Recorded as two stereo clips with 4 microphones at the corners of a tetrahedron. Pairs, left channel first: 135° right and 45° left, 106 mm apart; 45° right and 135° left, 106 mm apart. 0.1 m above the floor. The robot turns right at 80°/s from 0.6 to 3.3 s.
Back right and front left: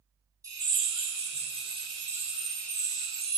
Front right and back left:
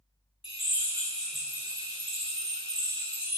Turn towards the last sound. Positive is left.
turn(degrees=-160)